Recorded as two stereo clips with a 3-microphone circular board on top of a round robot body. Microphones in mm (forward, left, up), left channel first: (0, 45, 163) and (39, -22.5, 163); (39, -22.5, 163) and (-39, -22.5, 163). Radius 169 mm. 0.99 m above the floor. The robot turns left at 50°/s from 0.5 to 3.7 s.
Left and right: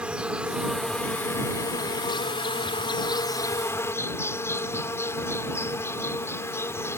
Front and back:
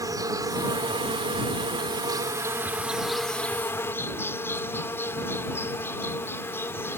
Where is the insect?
140° right; by 7.0 s 60° left.